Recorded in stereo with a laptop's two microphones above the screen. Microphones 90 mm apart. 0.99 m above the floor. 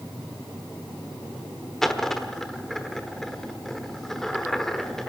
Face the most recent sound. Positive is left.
turn(degrees=5)  # may be behind; listen again after turning